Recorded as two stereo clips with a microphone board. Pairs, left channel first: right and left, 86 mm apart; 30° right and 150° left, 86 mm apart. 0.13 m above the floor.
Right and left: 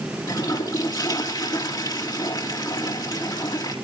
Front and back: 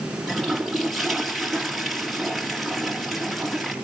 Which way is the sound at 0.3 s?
120° right.